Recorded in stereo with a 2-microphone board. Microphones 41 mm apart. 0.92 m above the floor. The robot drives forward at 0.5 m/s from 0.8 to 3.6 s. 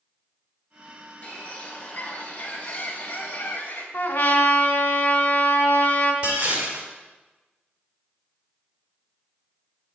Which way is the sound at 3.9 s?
75° left (ahead or behind).